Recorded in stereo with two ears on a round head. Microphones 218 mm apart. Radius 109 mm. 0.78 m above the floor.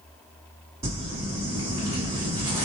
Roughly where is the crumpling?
Centre.